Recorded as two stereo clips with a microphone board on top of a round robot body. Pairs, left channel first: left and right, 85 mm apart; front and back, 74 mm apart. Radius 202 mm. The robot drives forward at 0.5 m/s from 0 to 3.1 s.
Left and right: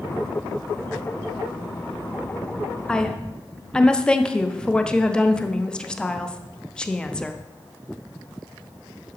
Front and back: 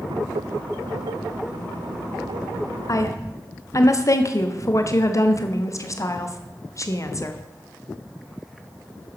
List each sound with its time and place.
2.9 s a woman speaking: 10° left, 1.2 m; by 7.4 s 15° left, 1.1 m